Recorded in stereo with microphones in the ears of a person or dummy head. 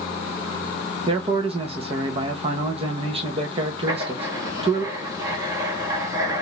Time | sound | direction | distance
1.1 | a man speaking | 35° right (ahead or behind) | 1.0 m
3.9 | writing | 15° right (ahead or behind) | 1.2 m